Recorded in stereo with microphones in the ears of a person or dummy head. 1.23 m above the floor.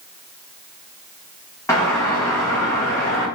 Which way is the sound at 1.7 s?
15° left (ahead or behind).